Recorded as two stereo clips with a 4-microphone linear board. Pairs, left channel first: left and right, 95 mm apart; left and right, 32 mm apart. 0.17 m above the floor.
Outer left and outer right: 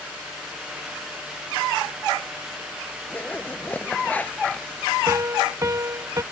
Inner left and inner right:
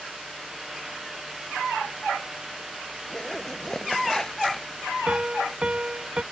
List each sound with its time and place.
3.1 s a zipper: 15° left (ahead or behind)
5.1 s a piano: 30° right (ahead or behind)